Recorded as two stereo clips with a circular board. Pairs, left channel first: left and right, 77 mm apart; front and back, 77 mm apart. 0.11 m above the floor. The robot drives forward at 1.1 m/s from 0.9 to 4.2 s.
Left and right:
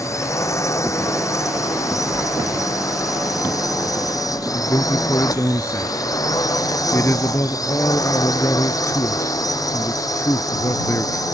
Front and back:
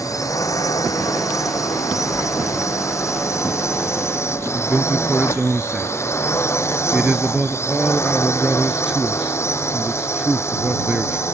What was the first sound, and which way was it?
A drone, 45° left.